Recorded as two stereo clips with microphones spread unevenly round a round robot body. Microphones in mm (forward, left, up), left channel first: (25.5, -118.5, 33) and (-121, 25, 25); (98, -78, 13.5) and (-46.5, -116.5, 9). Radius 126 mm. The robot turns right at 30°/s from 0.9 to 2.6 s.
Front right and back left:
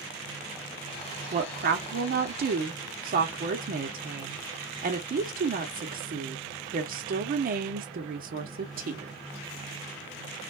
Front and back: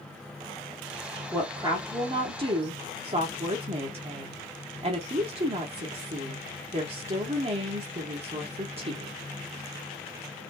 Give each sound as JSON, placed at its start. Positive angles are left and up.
{"t": 1.3, "sound": "a woman speaking", "azimuth_deg": 120, "distance_m": 1.0}